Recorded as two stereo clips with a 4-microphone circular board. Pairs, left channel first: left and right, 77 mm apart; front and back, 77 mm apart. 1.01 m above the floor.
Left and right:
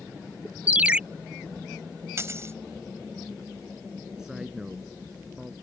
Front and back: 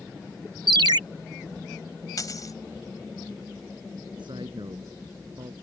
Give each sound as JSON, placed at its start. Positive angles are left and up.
{"t": 0.7, "sound": "a ringtone", "azimuth_deg": -160}
{"t": 2.2, "sound": "a dropped coin", "azimuth_deg": -35}
{"t": 4.2, "sound": "a man speaking", "azimuth_deg": -170}